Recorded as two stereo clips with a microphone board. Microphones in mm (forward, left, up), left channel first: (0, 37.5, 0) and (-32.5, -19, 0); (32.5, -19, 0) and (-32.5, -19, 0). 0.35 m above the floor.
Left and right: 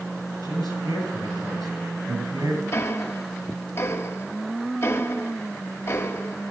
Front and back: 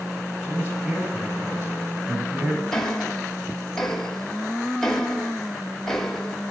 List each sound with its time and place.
0.4 s a man speaking: 120° right, 9 m
2.7 s ticking: 85° left, 1.3 m